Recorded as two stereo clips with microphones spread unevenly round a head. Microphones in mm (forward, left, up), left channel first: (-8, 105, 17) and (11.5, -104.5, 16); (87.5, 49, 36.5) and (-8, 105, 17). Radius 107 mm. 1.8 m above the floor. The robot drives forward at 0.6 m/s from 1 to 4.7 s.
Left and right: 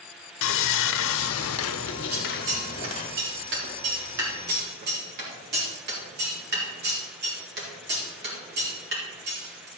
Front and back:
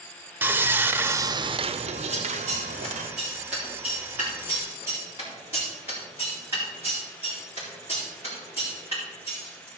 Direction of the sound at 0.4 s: 75° left.